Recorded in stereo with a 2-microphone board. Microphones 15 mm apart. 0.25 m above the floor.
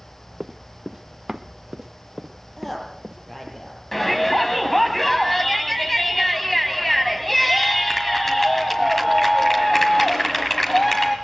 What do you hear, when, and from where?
0.4 s running footsteps: 25° right (ahead or behind), 0.9 m; by 3.6 s 50° right (ahead or behind), 2.5 m
2.6 s a woman speaking: 15° left (ahead or behind), 5.5 m
3.9 s a shout: 15° left (ahead or behind), 1.8 m